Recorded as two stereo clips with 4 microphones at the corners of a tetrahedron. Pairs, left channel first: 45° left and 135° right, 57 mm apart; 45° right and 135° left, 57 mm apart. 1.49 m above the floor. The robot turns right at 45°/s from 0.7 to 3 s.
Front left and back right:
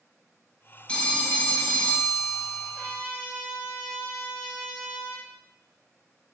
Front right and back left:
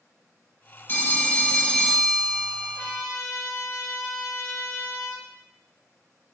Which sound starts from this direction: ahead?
A phone ringing, at 0.9 s.